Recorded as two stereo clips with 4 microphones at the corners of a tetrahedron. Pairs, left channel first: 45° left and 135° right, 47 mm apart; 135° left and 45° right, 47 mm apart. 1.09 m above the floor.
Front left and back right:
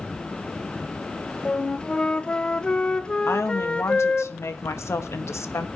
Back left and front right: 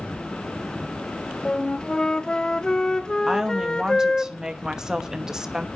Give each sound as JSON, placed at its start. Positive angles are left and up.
{"t": 1.4, "sound": "a flute", "azimuth_deg": 85, "distance_m": 0.6}
{"t": 3.3, "sound": "a woman speaking", "azimuth_deg": 30, "distance_m": 1.2}